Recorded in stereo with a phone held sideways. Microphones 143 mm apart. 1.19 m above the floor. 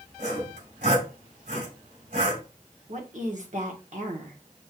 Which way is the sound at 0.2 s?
75° right (ahead or behind).